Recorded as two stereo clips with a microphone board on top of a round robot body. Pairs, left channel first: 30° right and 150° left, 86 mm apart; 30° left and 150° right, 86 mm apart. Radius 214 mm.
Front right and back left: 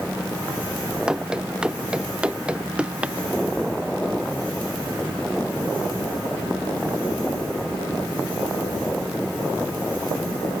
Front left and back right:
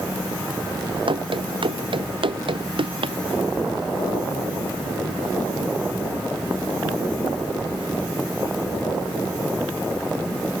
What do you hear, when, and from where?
1.1 s running footsteps: 130° right; by 3.2 s 135° right